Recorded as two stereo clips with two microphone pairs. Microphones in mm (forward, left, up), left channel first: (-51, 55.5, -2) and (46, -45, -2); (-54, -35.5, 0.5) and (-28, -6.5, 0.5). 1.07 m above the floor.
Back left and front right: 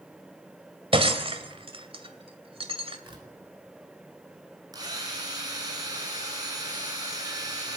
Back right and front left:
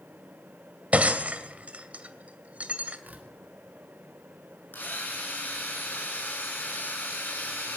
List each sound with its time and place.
0.9 s breaking glass: straight ahead, 2 m
3.0 s tearing paper: 5° left, 4 m
4.7 s a drill: 105° right, 9 m